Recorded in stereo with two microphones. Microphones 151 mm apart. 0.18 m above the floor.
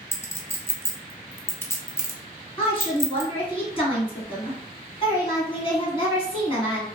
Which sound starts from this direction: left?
A woman speaking, at 2.6 s.